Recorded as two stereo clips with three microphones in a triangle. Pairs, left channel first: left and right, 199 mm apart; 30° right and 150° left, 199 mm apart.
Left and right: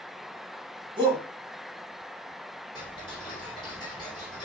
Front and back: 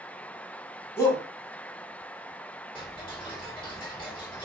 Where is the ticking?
30° left, 1.6 m.